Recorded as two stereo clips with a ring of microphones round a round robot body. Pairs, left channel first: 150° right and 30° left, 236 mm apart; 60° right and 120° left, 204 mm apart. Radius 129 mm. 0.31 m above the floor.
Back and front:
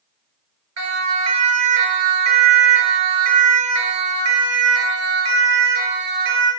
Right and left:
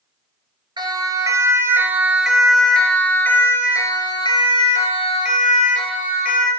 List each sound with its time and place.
0.8 s a siren: 50° left, 7 m; by 6.5 s 15° right, 8.5 m